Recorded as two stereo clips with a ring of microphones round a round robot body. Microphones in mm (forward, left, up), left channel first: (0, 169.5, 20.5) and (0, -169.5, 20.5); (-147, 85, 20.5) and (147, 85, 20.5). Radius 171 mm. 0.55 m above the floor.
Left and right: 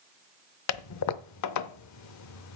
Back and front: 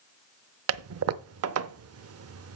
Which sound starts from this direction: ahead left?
A toilet flushing, at 0.7 s.